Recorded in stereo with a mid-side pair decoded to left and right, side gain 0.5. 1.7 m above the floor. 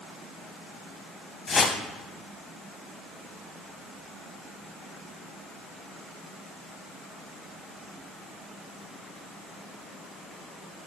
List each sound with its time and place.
1.5 s a whoosh: 40° left, 0.9 m